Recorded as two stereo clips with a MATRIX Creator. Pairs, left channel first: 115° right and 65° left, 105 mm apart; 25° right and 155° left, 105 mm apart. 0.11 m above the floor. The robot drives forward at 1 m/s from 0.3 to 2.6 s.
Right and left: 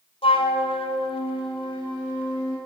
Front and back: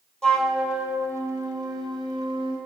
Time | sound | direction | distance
0.2 | a flute | 105° right | 1.1 m